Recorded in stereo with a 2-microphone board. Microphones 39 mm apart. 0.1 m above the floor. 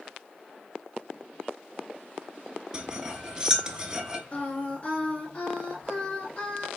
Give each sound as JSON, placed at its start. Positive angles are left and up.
{"t": 2.7, "sound": "cutlery clinking", "side_deg": -20, "distance_m": 0.7}
{"t": 4.3, "sound": "singing", "side_deg": 30, "distance_m": 2.0}